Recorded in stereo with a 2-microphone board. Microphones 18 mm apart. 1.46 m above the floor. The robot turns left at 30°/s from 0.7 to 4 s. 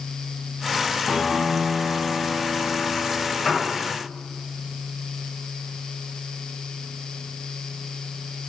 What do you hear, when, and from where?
1.1 s a piano: 170° left, 1.2 m; by 3.4 s 100° left, 1.2 m
3.5 s a piano: 15° left (ahead or behind), 2.5 m; by 3.7 s 10° left (ahead or behind), 2.5 m